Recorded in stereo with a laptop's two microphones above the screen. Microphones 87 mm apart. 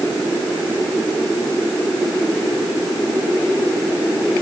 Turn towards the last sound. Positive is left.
No sound to turn to.